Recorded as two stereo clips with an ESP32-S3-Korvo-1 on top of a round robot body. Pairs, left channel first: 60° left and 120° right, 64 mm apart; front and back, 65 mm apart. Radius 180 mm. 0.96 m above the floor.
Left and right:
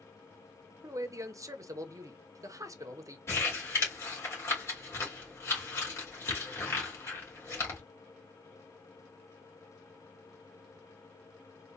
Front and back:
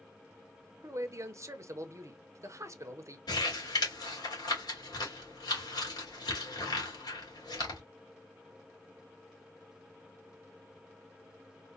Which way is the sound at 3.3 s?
5° left.